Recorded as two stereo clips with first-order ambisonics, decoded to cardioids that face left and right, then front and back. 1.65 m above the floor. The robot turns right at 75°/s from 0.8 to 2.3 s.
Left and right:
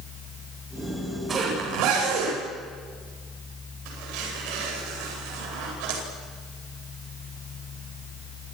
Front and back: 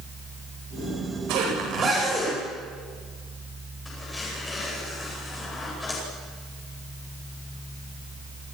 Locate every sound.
1.3 s a zipper: 160° right, 9.5 m; by 6.0 s 80° right, 9.5 m